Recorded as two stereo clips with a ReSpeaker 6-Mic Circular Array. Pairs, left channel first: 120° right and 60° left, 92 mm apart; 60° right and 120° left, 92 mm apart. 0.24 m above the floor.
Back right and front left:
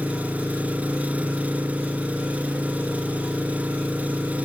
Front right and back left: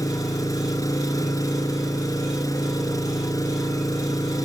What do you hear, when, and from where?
0.0 s an engine running: 15° right, 3 m